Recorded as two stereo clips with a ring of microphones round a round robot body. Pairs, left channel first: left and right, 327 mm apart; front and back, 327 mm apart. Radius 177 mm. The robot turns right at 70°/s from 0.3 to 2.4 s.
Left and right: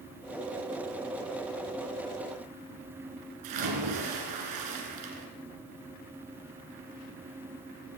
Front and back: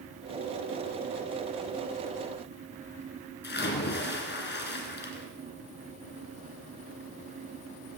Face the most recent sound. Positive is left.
turn(degrees=-55)